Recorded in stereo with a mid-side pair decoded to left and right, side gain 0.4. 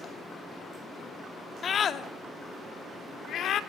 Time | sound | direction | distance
1.6 | a scream | 55° left | 2.5 m